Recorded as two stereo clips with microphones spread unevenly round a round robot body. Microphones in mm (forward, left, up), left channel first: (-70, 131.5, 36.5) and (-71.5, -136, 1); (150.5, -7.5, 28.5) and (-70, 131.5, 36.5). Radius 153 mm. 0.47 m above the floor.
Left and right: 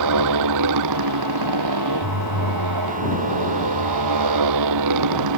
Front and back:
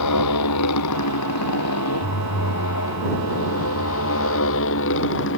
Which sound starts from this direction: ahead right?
A motorcycle, at 0.0 s.